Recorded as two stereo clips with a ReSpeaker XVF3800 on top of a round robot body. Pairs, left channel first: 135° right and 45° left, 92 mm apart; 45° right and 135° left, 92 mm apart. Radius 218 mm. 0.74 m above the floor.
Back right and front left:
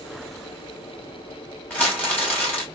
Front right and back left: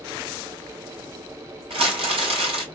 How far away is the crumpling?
About 3 m.